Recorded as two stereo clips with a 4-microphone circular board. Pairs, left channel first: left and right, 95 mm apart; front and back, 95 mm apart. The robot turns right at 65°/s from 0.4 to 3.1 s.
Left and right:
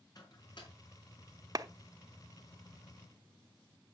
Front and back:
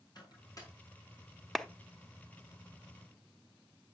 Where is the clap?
85° right, 0.7 m; by 1.7 s 80° right, 0.7 m.